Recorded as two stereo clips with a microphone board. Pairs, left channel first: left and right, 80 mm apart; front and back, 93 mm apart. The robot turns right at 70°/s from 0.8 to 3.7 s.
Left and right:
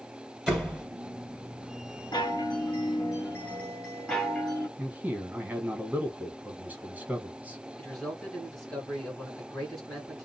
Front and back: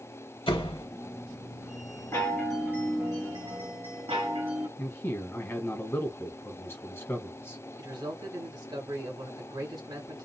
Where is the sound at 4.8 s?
40° right, 1.3 m.